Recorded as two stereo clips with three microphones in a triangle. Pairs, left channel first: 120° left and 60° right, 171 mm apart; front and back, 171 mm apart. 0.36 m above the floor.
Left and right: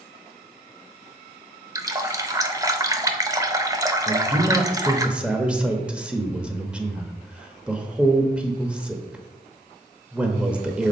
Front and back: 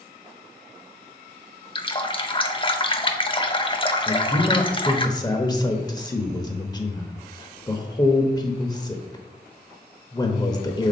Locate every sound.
1.8 s a running tap: 10° right, 0.6 m
4.1 s a man speaking: 15° left, 0.8 m